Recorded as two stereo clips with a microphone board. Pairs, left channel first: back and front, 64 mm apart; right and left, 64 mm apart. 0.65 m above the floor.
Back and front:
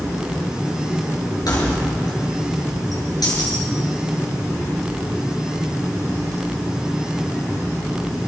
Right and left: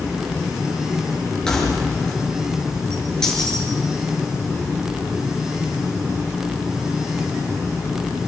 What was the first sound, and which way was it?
Keys jangling, 170° right.